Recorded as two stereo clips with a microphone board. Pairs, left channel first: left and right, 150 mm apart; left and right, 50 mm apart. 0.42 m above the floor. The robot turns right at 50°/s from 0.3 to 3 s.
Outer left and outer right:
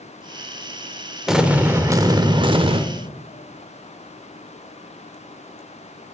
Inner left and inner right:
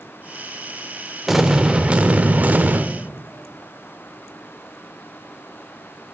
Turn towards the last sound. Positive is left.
turn(degrees=-90)